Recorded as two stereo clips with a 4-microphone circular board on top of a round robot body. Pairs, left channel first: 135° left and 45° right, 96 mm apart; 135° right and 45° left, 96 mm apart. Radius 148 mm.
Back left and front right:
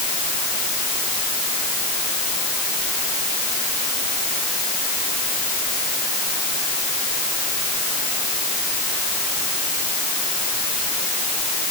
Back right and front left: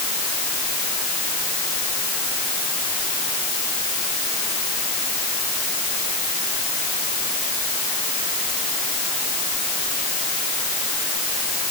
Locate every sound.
Only background noise.